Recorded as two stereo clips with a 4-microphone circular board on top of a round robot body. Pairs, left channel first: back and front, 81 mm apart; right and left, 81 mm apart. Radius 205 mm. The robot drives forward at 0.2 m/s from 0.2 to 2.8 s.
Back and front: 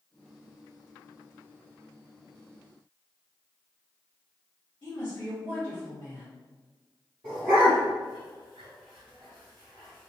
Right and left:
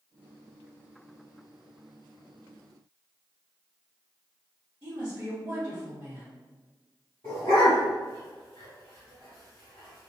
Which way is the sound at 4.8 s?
140° left.